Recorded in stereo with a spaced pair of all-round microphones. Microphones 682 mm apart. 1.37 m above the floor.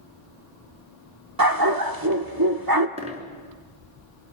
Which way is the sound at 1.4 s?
30° right (ahead or behind).